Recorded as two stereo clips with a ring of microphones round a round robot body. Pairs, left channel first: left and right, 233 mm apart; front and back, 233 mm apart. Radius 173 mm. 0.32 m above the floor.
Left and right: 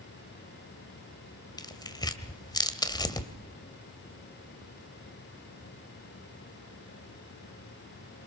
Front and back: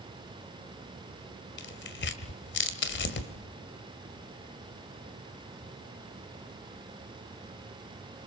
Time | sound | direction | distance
1.6 | tearing paper | 20° left | 1.9 m